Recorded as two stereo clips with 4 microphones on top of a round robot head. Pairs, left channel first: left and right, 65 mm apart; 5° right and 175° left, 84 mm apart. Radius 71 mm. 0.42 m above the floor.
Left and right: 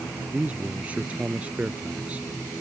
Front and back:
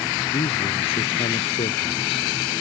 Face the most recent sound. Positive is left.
turn(degrees=-15)